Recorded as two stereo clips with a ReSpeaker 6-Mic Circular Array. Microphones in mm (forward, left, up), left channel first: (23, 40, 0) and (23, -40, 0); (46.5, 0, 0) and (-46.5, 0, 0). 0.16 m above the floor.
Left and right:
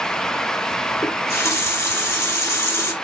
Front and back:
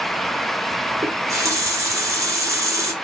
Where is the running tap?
135° left, 1.2 m.